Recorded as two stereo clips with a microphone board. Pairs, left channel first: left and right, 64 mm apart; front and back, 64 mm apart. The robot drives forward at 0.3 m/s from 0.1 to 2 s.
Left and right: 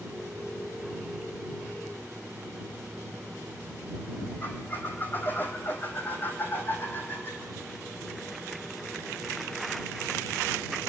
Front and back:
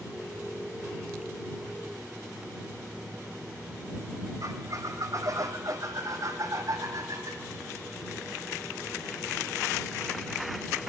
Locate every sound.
4.4 s a squeak: 150° left, 2 m